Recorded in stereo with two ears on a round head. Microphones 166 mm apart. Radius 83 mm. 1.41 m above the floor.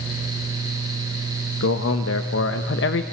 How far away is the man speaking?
About 1.4 m.